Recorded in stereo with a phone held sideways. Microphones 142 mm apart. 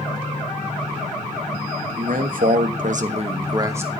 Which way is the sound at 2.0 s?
70° right (ahead or behind).